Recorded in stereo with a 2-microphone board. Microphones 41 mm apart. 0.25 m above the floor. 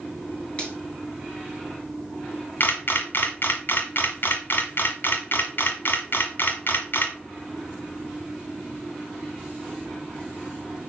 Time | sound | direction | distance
0.6 | a finger snap | 25° left (ahead or behind) | 4 m
2.6 | a camera shutter | 55° left (ahead or behind) | 1.4 m